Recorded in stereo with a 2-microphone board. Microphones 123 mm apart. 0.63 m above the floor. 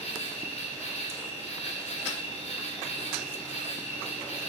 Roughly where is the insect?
Left.